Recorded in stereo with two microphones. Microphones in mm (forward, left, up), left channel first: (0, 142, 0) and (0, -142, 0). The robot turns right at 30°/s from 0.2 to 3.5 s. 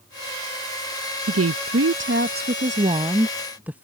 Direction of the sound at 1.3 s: 75° right.